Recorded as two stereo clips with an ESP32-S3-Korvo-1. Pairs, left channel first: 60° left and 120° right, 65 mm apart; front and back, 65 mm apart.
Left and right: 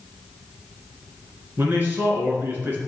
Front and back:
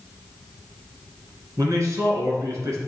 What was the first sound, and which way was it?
A man speaking, 170° right.